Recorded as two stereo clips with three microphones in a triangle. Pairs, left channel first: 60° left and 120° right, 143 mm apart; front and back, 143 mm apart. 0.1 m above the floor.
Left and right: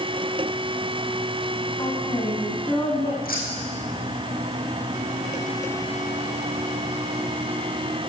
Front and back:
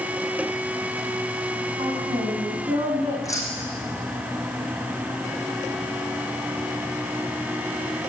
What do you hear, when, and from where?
1.8 s a woman speaking: 125° left, 5.5 m; by 3.1 s 120° left, 7 m
3.2 s keys jangling: 70° left, 4 m